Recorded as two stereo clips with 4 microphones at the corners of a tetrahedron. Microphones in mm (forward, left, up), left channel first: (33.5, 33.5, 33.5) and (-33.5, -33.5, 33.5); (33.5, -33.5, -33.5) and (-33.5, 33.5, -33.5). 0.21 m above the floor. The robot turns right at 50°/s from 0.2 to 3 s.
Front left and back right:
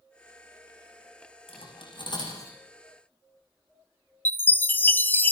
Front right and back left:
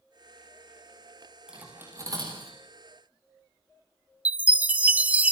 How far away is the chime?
About 0.6 m.